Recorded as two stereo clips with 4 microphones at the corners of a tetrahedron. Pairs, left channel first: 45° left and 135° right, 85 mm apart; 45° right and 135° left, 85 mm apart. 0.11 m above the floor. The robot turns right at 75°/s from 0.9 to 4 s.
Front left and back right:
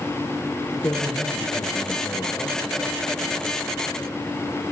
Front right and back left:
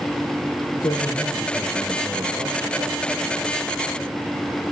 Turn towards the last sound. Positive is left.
turn(degrees=-145)